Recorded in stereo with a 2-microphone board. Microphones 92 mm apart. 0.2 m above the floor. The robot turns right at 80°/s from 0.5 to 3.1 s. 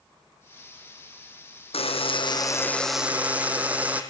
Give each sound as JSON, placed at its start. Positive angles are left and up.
{"t": 1.7, "sound": "a buzzer", "azimuth_deg": 85, "distance_m": 3.0}